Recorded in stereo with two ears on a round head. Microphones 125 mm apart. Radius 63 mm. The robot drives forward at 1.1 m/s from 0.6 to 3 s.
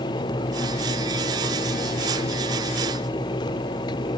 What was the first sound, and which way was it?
Only background noise.